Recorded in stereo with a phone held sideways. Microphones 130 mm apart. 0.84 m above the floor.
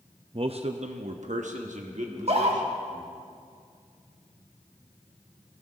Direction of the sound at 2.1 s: 55° right (ahead or behind).